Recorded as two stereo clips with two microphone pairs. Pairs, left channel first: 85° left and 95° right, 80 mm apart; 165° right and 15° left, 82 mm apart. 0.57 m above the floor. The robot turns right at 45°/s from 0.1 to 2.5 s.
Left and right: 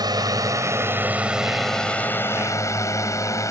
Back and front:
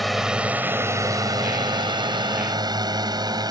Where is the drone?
75° right; by 3.5 s 45° left.